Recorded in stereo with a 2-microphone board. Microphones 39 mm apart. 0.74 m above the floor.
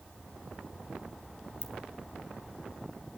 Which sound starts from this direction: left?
A ringtone, at 1.6 s.